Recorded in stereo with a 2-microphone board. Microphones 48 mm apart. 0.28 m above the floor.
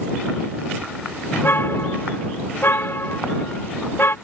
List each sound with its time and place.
1.3 s a car horn: 50° left (ahead or behind)